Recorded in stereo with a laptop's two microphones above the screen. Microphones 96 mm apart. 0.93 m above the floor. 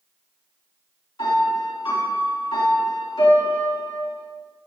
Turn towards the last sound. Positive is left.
turn(degrees=45)  # may be behind; listen again after turning